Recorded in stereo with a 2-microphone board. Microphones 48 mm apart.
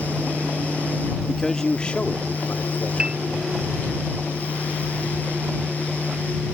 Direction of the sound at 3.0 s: 15° right (ahead or behind).